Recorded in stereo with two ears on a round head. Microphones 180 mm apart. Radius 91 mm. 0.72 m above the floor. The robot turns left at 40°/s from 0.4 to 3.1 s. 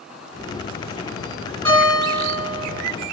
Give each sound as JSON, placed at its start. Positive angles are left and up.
{"t": 1.6, "sound": "a guitar", "azimuth_deg": 165, "distance_m": 2.0}